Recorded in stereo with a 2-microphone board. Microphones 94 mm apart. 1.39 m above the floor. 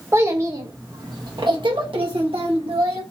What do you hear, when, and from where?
0.1 s a child speaking: 30° right (ahead or behind), 1.6 m; by 3.0 s 85° right, 2.0 m